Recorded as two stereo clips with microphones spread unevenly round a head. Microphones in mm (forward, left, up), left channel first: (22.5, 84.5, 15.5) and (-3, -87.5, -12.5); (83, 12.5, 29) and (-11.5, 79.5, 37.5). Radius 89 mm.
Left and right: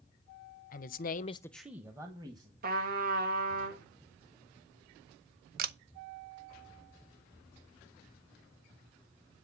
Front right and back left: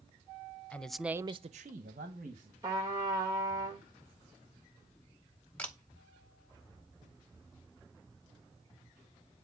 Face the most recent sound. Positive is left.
turn(degrees=-120)